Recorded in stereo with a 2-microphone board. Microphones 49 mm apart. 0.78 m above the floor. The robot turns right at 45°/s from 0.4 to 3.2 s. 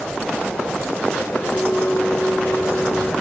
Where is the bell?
75° left, 1.3 m; by 3.1 s 145° left, 1.3 m.